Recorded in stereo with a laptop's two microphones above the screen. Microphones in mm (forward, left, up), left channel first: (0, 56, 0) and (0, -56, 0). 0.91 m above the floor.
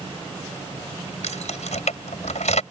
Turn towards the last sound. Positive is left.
turn(degrees=80)